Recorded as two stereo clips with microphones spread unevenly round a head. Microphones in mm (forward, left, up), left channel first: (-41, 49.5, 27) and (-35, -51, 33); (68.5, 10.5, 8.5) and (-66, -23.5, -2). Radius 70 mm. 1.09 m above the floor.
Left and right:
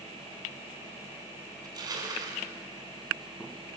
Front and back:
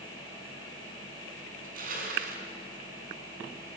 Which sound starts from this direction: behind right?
Crushing, at 1.6 s.